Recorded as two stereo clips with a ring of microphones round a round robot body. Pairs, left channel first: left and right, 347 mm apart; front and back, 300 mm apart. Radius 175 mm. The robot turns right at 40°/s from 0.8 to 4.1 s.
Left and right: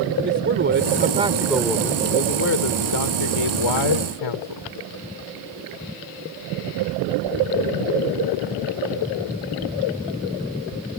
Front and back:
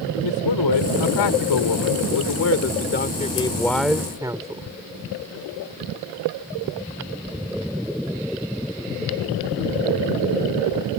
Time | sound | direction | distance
0.2 | a man speaking | 30° right | ?